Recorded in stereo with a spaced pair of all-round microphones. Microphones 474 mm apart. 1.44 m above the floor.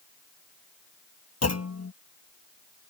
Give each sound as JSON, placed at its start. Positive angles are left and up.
{"t": 1.4, "sound": "a clunk", "side_deg": 30}